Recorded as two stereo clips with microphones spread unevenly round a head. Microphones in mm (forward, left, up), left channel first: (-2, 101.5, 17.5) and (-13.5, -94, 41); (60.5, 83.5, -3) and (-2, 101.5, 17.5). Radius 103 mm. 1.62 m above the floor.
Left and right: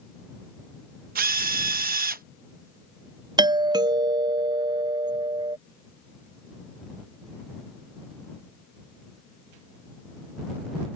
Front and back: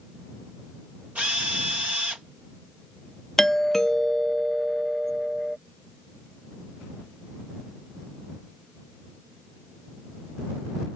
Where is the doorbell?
40° right.